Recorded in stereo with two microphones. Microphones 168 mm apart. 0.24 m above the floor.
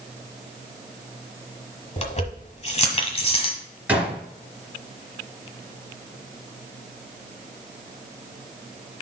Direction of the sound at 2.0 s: 40° left (ahead or behind).